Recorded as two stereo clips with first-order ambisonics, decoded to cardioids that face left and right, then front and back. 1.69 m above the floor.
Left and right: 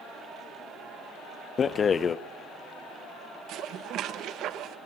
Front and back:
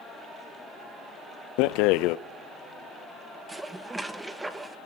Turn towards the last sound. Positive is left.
turn(degrees=-100)